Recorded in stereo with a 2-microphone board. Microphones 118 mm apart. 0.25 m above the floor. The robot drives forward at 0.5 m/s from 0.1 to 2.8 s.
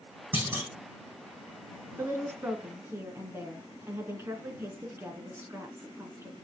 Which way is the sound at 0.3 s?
15° right (ahead or behind).